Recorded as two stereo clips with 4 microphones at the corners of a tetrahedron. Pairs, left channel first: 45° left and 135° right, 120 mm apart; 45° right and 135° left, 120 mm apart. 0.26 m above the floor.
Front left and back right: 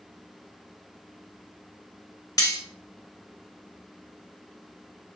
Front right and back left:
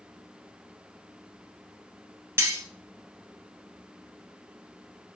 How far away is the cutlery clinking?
About 0.6 m.